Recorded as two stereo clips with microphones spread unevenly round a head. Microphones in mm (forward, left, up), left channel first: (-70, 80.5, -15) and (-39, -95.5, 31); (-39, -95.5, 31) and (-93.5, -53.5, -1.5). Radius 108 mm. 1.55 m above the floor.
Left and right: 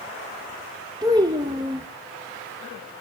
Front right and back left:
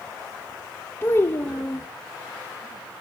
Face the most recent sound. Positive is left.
turn(degrees=-25)